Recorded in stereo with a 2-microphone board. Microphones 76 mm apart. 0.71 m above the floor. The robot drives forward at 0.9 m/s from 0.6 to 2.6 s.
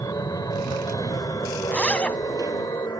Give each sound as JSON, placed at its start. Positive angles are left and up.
{"t": 0.0, "sound": "an aircraft", "side_deg": 50}
{"t": 1.7, "sound": "a zipper", "side_deg": 15}